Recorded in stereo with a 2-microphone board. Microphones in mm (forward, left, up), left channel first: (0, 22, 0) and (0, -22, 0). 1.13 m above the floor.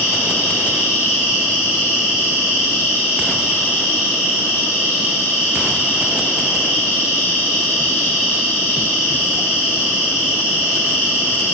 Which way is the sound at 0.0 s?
60° left (ahead or behind).